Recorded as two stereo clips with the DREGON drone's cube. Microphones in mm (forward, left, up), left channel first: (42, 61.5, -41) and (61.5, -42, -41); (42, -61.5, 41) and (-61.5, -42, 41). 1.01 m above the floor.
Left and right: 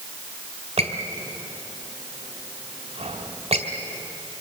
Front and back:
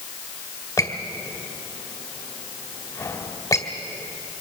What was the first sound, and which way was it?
A squeak, 70° right.